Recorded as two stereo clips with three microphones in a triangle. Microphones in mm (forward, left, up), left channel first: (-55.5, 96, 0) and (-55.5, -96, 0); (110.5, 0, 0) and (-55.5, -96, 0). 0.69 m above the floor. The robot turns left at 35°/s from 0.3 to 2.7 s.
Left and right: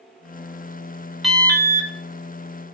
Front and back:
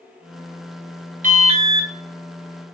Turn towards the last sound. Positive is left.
turn(degrees=130)